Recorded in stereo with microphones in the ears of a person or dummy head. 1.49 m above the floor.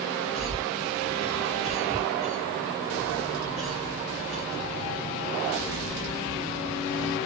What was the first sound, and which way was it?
A cough, 15° left (ahead or behind).